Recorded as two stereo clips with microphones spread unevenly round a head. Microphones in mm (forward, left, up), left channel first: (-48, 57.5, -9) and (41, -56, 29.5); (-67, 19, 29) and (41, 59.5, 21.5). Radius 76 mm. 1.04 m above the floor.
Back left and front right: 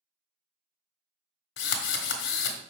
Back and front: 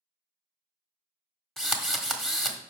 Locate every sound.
1.6 s a drill: 115° left, 1.5 m